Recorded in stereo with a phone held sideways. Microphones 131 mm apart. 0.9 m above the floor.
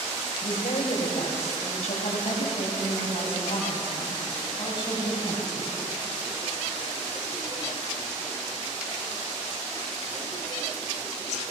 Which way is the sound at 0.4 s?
70° left (ahead or behind).